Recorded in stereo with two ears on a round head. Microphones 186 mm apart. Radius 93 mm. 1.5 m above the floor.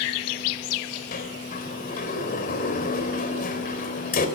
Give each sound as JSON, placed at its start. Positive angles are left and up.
{"t": 1.1, "sound": "a sliding door", "side_deg": 45, "distance_m": 3.5}